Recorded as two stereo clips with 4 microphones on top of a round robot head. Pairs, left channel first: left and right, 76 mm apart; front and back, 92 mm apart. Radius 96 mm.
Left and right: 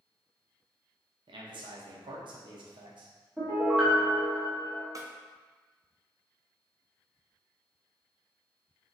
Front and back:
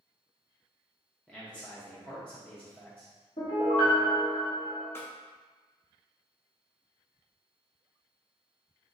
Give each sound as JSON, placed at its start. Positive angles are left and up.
{"t": 1.3, "sound": "a man speaking", "azimuth_deg": -80, "distance_m": 0.8}
{"t": 3.4, "sound": "a piano", "azimuth_deg": -15, "distance_m": 1.0}
{"t": 5.0, "sound": "a snare drum", "azimuth_deg": -60, "distance_m": 0.6}